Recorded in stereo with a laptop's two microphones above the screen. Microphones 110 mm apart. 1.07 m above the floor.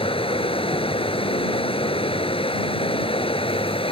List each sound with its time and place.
0.0 s running water: 55° left (ahead or behind)